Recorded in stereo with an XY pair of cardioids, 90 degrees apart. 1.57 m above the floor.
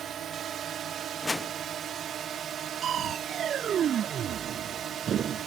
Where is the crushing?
60° right.